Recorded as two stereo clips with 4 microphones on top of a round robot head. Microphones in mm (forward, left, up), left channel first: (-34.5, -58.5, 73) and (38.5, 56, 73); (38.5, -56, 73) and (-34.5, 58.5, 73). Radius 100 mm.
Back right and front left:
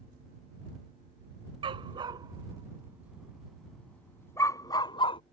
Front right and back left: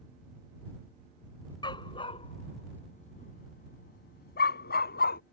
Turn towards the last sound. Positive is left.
turn(degrees=-70)